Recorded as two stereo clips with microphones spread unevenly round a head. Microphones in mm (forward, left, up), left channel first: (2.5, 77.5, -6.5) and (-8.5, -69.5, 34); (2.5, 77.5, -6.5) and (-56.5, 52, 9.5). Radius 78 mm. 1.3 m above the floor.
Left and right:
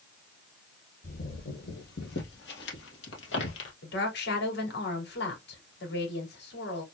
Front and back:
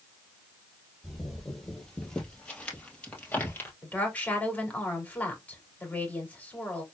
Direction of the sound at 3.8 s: 90° left.